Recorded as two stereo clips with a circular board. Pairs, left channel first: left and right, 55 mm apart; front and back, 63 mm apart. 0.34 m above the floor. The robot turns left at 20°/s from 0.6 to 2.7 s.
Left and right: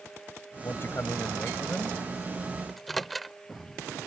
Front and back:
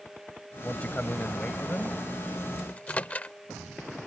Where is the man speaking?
65° left; by 2.0 s 40° left.